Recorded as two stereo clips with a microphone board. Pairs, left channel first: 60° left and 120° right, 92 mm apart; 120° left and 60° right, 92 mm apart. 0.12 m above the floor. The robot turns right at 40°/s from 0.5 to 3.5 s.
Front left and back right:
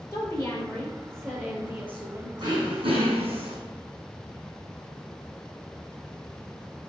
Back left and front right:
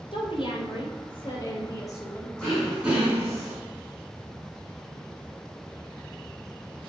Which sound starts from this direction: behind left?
A woman speaking, at 0.1 s.